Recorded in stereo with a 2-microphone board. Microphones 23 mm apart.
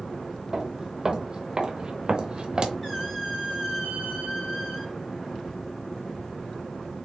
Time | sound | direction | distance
0.5 | footsteps | 30° right (ahead or behind) | 1.0 m
2.8 | a squeak | 25° left (ahead or behind) | 2.5 m